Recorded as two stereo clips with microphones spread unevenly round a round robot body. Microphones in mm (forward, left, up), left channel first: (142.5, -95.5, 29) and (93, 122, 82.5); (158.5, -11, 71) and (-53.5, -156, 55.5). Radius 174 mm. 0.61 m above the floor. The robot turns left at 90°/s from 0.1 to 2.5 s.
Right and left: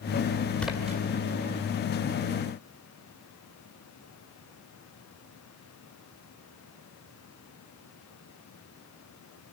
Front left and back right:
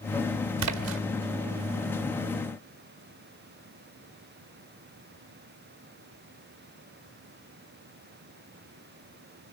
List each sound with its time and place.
0.6 s a splash: 160° right, 1.7 m; by 1.0 s 165° left, 1.7 m